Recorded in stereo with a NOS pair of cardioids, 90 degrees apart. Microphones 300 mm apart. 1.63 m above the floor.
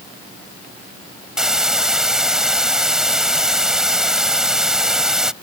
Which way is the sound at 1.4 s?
Straight ahead.